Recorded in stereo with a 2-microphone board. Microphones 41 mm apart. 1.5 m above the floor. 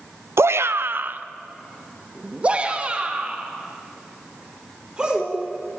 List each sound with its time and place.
0.4 s a shout: 85° right, 0.6 m; by 5.4 s 20° right (ahead or behind), 5.5 m